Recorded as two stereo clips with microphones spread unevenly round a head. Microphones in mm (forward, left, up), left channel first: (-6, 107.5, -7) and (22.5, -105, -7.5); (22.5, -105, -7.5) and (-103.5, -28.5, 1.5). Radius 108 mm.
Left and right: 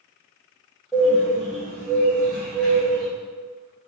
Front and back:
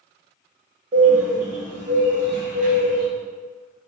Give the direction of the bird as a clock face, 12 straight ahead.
6 o'clock.